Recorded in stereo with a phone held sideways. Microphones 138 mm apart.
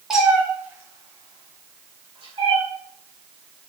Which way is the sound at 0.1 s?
5° right (ahead or behind).